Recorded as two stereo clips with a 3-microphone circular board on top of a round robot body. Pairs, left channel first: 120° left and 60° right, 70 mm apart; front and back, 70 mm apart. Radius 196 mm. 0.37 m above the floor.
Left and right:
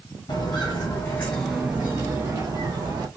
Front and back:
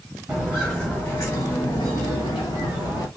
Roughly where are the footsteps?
Left.